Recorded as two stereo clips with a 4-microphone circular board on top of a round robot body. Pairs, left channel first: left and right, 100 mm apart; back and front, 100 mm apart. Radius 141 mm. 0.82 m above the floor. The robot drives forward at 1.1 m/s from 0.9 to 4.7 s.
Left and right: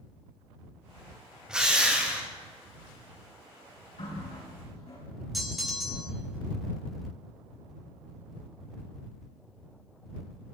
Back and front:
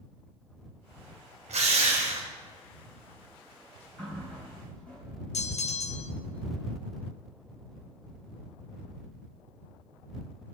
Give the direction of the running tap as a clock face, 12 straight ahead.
9 o'clock.